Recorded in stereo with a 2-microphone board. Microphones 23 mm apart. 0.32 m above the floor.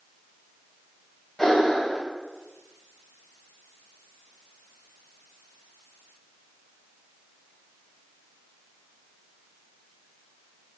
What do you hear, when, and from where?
1.4 s breathing: 10° left (ahead or behind), 0.9 m